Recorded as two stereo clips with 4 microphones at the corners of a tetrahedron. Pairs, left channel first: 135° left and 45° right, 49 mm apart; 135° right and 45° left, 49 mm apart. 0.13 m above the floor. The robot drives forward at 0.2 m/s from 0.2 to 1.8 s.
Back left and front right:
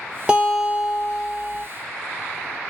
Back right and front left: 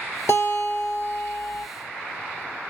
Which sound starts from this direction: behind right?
A guitar, at 0.3 s.